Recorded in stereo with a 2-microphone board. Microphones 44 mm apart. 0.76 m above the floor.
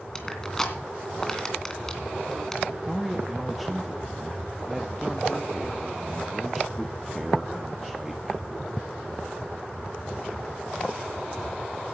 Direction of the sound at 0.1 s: 10° left (ahead or behind).